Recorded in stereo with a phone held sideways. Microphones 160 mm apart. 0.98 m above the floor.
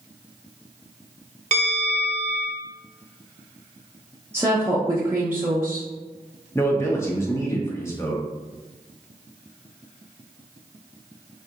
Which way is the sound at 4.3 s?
15° right (ahead or behind).